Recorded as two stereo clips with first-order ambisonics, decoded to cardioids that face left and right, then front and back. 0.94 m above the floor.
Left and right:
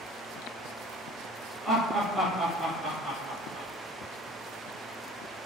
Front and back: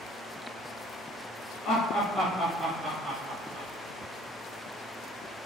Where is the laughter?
10° right, 0.9 m; by 3.7 s 160° right, 0.9 m.